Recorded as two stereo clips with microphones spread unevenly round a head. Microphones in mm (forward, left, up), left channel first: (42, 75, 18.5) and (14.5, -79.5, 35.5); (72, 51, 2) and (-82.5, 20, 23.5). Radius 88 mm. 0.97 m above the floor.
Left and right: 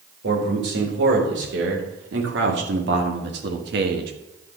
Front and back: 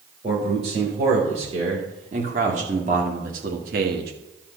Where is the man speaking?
105° right, 3.5 m; by 4.1 s 130° right, 1.2 m.